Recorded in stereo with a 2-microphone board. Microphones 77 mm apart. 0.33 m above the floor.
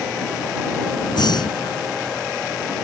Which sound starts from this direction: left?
Breathing, at 1.1 s.